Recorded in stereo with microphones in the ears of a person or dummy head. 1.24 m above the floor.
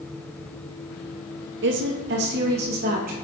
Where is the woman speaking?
60° right (ahead or behind), 1.1 m; by 3.1 s 50° right (ahead or behind), 2 m.